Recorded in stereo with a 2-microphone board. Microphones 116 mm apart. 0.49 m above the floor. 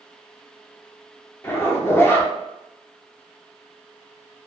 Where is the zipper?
20° left (ahead or behind), 0.5 m.